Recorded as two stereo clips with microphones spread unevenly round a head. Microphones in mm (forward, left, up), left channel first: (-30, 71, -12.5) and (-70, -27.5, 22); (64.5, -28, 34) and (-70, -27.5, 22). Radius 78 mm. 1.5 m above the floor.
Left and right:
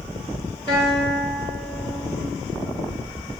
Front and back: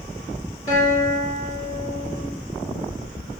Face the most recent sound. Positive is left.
turn(degrees=-25)